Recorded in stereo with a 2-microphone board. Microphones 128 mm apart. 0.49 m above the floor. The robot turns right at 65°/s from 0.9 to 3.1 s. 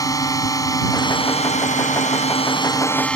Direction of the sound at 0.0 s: 30° left.